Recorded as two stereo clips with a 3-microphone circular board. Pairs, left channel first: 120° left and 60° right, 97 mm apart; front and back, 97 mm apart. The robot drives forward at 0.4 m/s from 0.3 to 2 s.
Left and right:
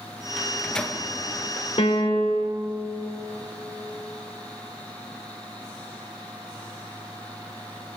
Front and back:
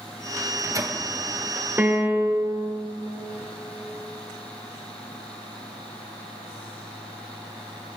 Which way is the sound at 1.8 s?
115° left.